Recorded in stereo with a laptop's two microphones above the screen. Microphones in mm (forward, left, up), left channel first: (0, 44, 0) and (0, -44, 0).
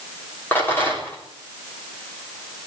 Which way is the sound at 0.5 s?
25° left (ahead or behind).